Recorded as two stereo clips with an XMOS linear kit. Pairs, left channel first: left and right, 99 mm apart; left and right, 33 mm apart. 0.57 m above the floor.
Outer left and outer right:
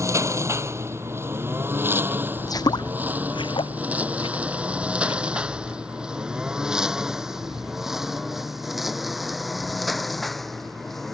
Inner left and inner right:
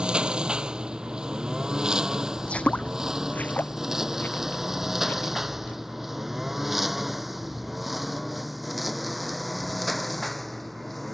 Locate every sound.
0.0 s a lawn mower: 30° right (ahead or behind); by 11.2 s centre (ahead or behind)
2.4 s footsteps: 35° left (ahead or behind); by 5.8 s 65° left (ahead or behind)